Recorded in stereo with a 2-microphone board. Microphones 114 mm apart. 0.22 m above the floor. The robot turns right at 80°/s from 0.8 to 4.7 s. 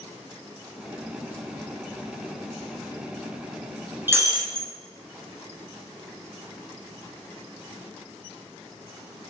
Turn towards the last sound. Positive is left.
turn(degrees=-110)